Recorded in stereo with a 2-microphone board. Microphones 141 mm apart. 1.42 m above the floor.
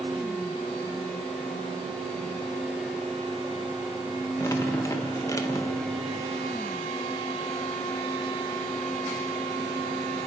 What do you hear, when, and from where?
4.4 s dripping: 25° left (ahead or behind), 2 m